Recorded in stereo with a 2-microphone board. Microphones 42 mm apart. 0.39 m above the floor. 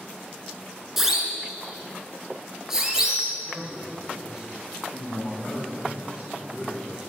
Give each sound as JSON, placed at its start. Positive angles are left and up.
{"t": 1.0, "sound": "a siren", "side_deg": -5, "distance_m": 4.5}
{"t": 3.5, "sound": "a man speaking", "side_deg": -15, "distance_m": 7.0}